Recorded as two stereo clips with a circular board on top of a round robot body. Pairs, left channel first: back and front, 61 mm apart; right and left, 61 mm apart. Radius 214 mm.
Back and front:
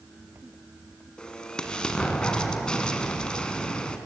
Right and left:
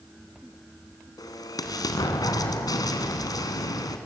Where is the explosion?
105° right, 1.7 m.